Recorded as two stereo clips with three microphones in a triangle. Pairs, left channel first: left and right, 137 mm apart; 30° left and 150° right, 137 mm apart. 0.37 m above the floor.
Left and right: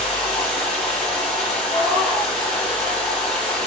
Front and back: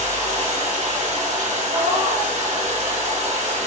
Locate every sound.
0.0 s running water: 175° left, 5 m
1.7 s a cat meowing: 175° left, 4 m